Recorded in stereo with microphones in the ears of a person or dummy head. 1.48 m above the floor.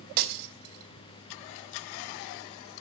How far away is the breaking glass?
About 3 m.